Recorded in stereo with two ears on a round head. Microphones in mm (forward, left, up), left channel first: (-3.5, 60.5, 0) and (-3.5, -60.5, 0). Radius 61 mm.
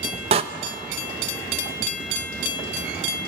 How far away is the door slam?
About 0.8 m.